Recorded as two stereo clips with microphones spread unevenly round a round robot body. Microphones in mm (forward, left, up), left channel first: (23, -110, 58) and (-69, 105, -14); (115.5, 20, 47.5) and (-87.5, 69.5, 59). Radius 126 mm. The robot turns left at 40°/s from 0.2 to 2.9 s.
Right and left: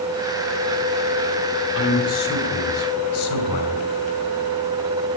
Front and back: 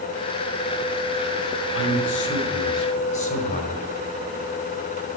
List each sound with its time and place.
1.8 s a man speaking: 25° right, 2.5 m; by 3.9 s 70° right, 2.5 m